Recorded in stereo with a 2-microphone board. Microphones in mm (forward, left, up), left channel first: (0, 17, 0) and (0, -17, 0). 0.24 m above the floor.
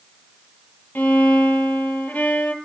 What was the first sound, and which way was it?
A violin, 75° left (ahead or behind).